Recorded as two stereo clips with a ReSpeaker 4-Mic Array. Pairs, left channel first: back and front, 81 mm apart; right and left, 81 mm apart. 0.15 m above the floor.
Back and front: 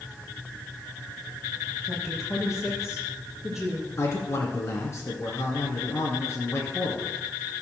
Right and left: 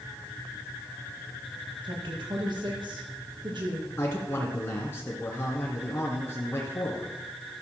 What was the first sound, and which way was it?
A woman speaking, 85° left.